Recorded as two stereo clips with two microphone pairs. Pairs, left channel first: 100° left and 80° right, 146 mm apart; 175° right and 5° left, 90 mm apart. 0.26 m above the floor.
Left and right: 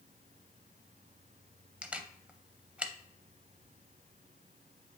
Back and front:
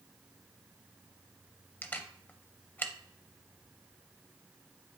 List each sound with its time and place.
1.8 s a camera shutter: 150° right, 0.5 m